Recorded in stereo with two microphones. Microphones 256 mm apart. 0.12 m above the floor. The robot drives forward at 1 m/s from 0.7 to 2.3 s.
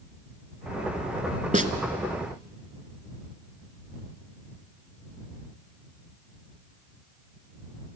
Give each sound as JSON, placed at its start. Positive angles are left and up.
{"t": 1.5, "sound": "a snare drum", "side_deg": -30, "distance_m": 1.1}